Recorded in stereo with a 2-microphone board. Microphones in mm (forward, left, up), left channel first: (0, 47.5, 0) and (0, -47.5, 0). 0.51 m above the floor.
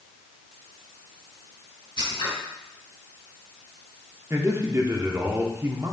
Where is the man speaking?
30° right (ahead or behind), 1.0 m.